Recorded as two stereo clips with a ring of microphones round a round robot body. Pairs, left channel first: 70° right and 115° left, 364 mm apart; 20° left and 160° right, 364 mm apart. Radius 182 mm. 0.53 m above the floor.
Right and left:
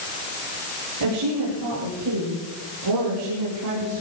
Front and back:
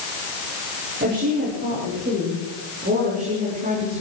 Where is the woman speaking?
140° left, 8.5 m; by 4.0 s 135° left, 6.5 m.